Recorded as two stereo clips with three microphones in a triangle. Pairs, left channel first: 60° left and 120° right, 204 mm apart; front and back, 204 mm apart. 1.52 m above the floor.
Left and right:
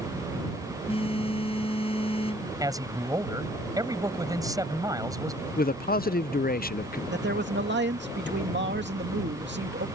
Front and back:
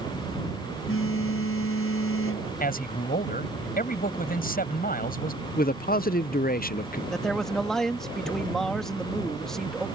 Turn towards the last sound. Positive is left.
turn(degrees=-90)